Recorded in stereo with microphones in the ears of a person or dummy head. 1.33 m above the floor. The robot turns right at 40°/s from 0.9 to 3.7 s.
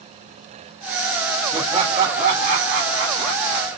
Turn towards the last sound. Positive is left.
turn(degrees=-70)